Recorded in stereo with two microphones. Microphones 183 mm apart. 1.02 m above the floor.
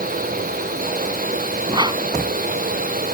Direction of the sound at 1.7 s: 25° right (ahead or behind).